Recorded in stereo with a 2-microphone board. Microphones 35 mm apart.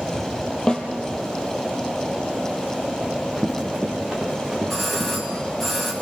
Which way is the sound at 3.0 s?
10° right (ahead or behind).